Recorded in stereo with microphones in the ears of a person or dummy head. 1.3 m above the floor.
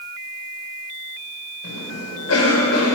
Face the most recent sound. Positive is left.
turn(degrees=85)